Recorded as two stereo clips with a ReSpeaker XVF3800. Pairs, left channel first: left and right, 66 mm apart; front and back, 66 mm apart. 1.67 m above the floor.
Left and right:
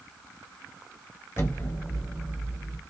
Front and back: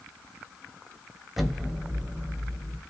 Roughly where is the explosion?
Left.